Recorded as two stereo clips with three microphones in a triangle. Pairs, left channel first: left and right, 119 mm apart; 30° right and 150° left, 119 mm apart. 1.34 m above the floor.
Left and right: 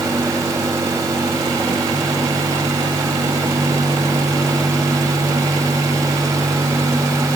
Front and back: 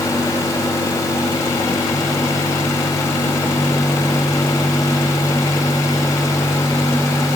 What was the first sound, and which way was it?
Only background noise.